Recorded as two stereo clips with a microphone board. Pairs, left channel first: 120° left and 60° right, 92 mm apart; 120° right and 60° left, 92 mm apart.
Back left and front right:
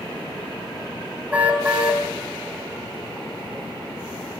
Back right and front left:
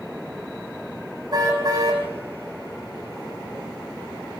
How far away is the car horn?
About 5.5 m.